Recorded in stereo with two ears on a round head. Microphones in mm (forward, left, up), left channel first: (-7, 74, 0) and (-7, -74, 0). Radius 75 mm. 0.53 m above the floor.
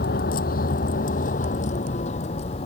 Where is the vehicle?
60° left (ahead or behind); by 2.7 s 35° left (ahead or behind).